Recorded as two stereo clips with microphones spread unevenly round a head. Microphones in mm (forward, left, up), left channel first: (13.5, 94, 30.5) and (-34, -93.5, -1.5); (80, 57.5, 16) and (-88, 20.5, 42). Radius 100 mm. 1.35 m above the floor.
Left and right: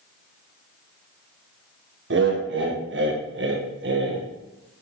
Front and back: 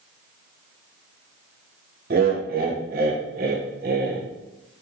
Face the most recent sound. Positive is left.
turn(degrees=-120)